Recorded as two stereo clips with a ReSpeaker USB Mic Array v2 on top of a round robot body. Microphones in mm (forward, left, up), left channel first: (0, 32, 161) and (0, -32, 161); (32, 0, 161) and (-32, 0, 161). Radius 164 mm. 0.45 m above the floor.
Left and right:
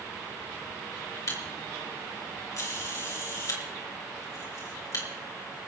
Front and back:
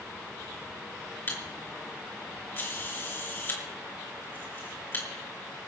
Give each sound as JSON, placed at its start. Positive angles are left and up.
{"t": 1.3, "sound": "a camera shutter", "azimuth_deg": 55, "distance_m": 4.5}